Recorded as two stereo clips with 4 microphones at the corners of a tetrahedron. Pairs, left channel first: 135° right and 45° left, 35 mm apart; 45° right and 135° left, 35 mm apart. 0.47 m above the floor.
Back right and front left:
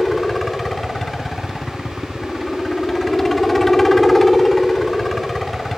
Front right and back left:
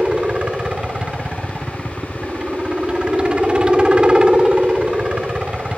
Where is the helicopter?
150° left.